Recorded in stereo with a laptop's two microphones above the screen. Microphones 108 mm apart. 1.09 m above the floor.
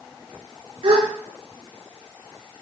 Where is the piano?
No piano in this recording.